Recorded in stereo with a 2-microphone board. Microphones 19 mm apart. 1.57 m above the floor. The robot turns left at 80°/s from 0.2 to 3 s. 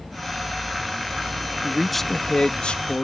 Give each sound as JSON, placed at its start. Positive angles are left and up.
{"t": 1.6, "sound": "a man speaking", "azimuth_deg": -160}